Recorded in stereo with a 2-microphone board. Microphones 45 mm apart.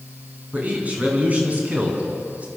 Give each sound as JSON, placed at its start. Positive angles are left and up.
{"t": 0.5, "sound": "a man speaking", "side_deg": -30, "distance_m": 6.0}